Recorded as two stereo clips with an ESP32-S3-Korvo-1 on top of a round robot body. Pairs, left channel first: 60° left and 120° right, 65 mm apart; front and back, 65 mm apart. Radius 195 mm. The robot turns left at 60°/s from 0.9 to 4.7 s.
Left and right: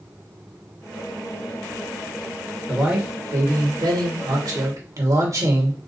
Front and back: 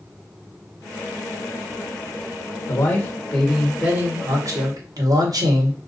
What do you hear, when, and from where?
2.7 s a man speaking: 35° right, 1.8 m; by 5.8 s 155° right, 1.8 m